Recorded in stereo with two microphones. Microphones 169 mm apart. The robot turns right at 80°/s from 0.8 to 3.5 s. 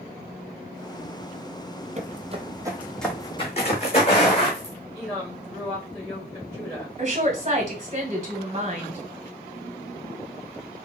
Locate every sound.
2.0 s footsteps: 45° right (ahead or behind), 0.5 m; by 4.7 s 35° left (ahead or behind), 2.0 m
4.9 s a woman speaking: 5° left (ahead or behind), 1.2 m
7.0 s a woman speaking: 40° right (ahead or behind), 1.1 m